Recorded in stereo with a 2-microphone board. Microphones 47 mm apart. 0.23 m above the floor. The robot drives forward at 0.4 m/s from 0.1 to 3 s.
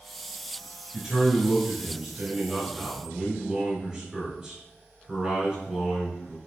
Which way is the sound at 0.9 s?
10° right (ahead or behind).